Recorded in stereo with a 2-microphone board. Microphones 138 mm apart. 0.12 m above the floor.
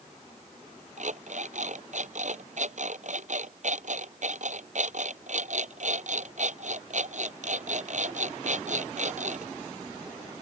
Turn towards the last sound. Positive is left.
turn(degrees=-65)  # may be behind; listen again after turning